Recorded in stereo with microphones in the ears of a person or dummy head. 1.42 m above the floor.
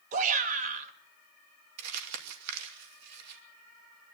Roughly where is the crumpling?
Right.